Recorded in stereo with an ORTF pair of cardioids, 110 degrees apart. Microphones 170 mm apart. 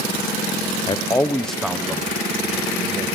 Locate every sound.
0.9 s a man speaking: 30° left, 1.1 m; by 3.0 s 25° right, 2.5 m